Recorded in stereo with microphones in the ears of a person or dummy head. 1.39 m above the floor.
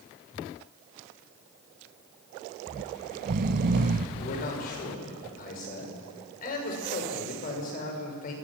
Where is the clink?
I don't hear a clink.